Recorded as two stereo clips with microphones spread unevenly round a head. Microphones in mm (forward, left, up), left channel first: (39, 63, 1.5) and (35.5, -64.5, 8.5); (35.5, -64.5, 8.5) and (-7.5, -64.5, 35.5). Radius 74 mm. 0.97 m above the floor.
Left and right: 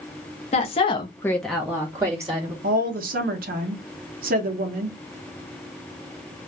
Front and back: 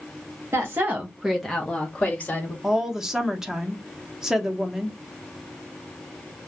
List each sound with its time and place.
0.5 s a woman speaking: 110° left, 0.8 m; by 2.5 s 30° right, 1.3 m
2.6 s a woman speaking: 90° right, 0.7 m